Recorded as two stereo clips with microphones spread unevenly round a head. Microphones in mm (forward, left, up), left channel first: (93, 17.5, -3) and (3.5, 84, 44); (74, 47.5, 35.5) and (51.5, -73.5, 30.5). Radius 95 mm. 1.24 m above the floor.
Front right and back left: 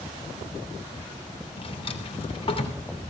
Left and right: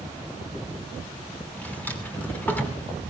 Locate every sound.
1.6 s a drawer: 5° left, 3 m